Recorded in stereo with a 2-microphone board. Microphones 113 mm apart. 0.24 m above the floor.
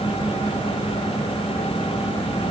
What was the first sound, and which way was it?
Only background noise.